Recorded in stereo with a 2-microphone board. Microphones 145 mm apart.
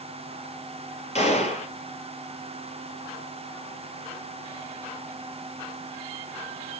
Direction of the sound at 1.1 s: 50° left (ahead or behind).